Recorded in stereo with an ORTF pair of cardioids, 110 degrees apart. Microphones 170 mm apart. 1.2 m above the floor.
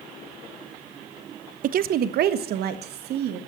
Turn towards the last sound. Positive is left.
turn(degrees=-75)